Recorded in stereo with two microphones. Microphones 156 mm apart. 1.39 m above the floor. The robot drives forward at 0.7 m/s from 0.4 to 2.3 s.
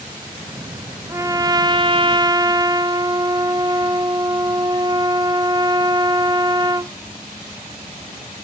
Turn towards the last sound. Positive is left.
turn(degrees=-25)  # may be behind; listen again after turning